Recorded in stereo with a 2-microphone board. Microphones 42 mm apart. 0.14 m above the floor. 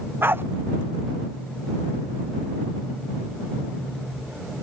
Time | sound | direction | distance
0.2 | a dog barking | 65° right (ahead or behind) | ?